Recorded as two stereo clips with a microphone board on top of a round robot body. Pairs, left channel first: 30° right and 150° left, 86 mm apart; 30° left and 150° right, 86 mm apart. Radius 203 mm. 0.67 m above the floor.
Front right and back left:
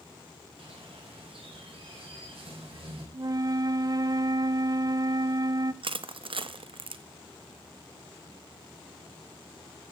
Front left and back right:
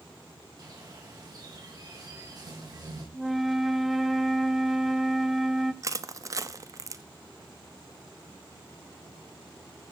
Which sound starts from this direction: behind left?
A flute, at 3.1 s.